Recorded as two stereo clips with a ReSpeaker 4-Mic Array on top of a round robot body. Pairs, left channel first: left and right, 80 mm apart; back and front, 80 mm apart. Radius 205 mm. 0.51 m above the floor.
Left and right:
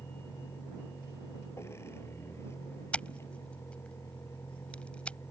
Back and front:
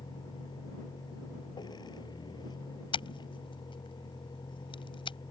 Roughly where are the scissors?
Behind.